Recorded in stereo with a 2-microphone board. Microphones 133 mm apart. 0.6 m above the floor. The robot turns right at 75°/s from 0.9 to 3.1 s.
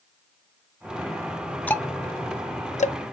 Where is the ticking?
10° left (ahead or behind), 0.5 m; by 3.0 s 55° left (ahead or behind), 0.5 m.